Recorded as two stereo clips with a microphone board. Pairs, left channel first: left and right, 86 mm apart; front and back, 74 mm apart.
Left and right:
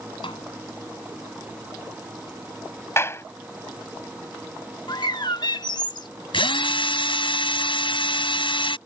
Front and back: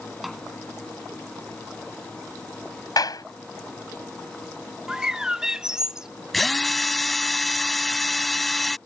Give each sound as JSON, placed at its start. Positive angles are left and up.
{"t": 0.2, "sound": "a snare drum", "azimuth_deg": 90}
{"t": 3.0, "sound": "a clap", "azimuth_deg": 30}
{"t": 4.9, "sound": "a bird", "azimuth_deg": 100}
{"t": 6.3, "sound": "a drill", "azimuth_deg": 90}